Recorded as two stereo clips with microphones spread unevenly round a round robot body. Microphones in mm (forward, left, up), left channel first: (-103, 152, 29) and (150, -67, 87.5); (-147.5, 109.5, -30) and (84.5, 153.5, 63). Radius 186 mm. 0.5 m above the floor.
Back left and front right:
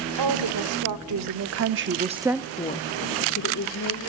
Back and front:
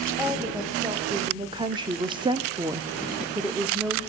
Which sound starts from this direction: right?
A woman speaking, at 0.2 s.